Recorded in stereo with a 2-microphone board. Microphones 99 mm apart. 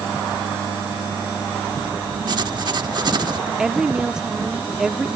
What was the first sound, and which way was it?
Writing, 45° right (ahead or behind).